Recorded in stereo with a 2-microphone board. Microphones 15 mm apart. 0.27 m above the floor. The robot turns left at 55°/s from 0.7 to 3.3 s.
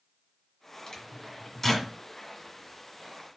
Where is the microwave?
50° left (ahead or behind), 1.9 m; by 1.9 s 5° left (ahead or behind), 1.9 m.